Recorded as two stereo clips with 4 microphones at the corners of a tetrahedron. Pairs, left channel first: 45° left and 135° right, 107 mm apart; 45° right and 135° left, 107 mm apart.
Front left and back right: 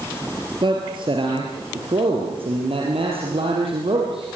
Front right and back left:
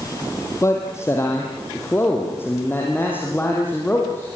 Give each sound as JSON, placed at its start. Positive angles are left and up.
{"t": 0.6, "sound": "a man speaking", "azimuth_deg": -105, "distance_m": 3.5}